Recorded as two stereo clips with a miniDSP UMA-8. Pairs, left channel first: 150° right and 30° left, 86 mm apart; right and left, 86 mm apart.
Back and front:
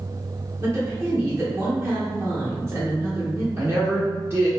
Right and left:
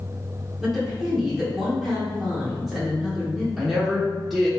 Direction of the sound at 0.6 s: Straight ahead.